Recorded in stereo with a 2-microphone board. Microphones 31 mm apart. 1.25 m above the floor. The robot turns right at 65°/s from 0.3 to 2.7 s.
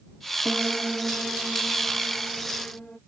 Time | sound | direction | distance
0.5 | a piano | 25° right | ?